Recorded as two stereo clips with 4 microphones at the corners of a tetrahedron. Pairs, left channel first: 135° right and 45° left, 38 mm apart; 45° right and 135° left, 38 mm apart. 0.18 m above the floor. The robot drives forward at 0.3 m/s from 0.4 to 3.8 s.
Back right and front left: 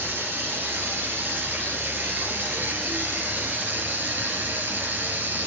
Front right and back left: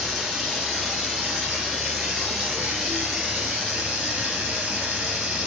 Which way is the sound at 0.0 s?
60° left.